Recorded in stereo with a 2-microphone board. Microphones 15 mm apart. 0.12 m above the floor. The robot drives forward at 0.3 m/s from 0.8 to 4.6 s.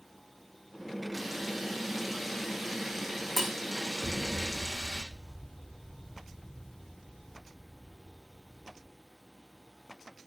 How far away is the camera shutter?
About 7.5 m.